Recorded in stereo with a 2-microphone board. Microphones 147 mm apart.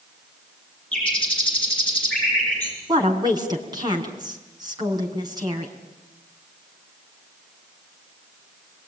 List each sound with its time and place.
0.9 s a bird: 5° left (ahead or behind), 9 m
2.9 s a woman speaking: 30° right (ahead or behind), 5.5 m